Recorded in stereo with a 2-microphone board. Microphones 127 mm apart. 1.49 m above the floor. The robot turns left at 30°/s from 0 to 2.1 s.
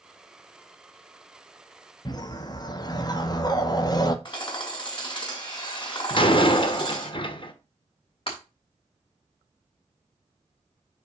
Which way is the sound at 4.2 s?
35° left (ahead or behind).